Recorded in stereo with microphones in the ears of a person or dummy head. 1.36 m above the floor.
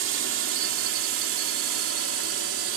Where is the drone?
75° right (ahead or behind); by 2.8 s 80° right.